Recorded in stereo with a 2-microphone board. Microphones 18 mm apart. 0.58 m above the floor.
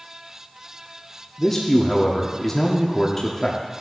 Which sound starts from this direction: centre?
A man speaking, at 1.4 s.